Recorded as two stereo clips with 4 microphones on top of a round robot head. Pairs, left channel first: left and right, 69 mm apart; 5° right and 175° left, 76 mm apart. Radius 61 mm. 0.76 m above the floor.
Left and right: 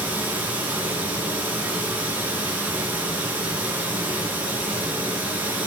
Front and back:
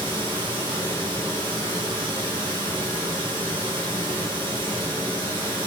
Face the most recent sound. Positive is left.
turn(degrees=-155)